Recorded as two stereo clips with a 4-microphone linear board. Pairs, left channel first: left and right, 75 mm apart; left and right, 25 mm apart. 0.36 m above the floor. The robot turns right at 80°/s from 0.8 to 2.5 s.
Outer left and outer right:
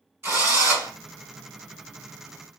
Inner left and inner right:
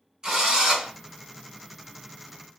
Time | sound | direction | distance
0.2 | a drill | 30° right (ahead or behind) | 2 m